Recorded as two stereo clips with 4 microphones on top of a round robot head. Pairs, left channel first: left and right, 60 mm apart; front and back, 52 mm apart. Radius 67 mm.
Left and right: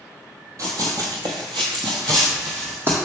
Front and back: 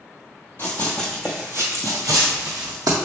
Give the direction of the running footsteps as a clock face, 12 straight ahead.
2 o'clock.